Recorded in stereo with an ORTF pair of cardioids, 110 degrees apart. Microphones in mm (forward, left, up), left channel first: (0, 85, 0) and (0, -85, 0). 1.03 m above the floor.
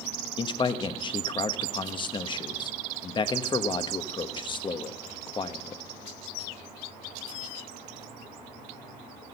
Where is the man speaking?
30° left, 1.1 m.